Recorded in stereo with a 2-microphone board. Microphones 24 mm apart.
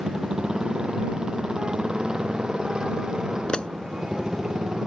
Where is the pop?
45° left (ahead or behind).